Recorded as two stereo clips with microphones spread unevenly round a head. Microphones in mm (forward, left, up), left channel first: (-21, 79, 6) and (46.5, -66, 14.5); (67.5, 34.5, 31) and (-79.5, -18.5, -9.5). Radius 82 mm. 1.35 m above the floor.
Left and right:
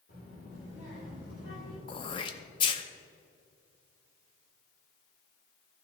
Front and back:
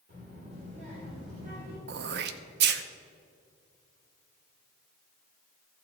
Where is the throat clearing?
175° left, 0.6 m.